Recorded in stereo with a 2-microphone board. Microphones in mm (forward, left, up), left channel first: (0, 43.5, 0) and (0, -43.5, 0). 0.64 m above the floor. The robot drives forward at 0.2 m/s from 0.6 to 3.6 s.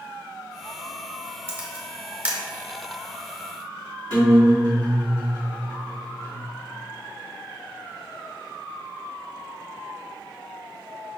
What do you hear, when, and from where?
1.5 s a camera shutter: 20° right (ahead or behind), 1.0 m
4.1 s a guitar: 70° left (ahead or behind), 1.8 m